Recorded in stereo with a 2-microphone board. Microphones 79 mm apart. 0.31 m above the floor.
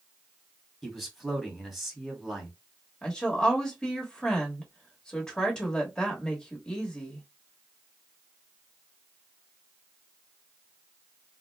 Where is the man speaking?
Centre (ahead or behind), 1.8 m.